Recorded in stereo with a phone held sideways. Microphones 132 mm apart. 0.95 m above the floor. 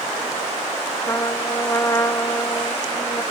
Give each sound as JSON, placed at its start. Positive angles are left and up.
{"t": 1.1, "sound": "a trumpet", "side_deg": 25}